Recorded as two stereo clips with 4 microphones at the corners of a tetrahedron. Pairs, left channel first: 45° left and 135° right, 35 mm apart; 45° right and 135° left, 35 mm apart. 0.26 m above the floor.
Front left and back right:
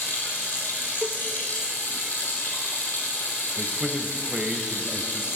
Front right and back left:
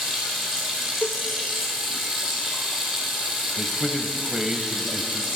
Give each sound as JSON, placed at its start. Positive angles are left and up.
{"t": 0.0, "sound": "running water", "azimuth_deg": 60, "distance_m": 3.0}
{"t": 1.0, "sound": "a cowbell", "azimuth_deg": -85, "distance_m": 0.5}
{"t": 3.6, "sound": "a man speaking", "azimuth_deg": -175, "distance_m": 1.0}